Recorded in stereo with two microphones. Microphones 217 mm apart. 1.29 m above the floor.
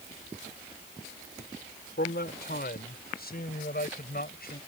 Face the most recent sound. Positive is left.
turn(degrees=45)  # may be behind; listen again after turning